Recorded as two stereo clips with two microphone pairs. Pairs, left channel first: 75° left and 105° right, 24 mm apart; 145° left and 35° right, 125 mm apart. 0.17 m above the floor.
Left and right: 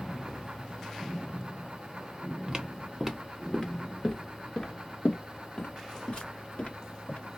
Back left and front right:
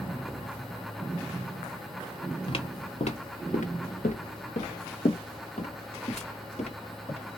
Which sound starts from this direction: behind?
Footsteps, at 2.5 s.